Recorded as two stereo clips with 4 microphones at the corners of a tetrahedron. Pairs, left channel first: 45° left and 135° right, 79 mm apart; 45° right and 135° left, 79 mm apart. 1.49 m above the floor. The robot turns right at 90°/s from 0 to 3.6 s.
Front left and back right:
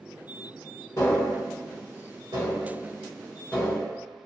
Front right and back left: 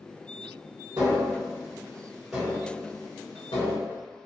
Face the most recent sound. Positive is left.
turn(degrees=-30)